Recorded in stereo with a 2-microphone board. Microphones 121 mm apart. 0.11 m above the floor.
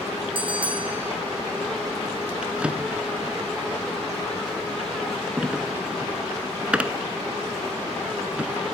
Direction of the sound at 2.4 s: 10° right (ahead or behind).